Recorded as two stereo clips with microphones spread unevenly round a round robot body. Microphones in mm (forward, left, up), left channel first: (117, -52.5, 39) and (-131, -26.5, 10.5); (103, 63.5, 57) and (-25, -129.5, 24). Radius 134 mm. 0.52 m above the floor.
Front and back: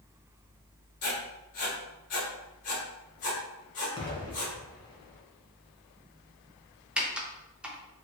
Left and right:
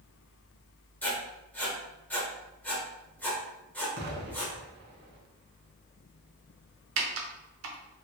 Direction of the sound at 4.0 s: 80° right.